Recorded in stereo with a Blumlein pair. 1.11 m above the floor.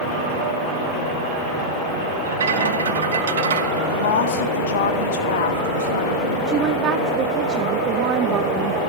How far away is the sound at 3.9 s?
About 1.9 m.